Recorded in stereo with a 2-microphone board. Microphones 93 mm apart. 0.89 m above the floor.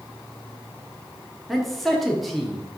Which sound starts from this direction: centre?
A man speaking, at 1.5 s.